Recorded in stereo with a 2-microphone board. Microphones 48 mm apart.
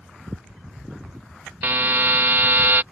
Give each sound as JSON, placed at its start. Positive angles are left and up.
{"t": 1.6, "sound": "a buzzer", "side_deg": -50}